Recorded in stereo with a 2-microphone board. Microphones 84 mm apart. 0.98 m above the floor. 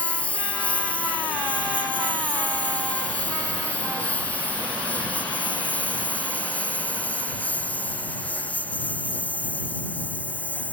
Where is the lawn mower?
15° left (ahead or behind).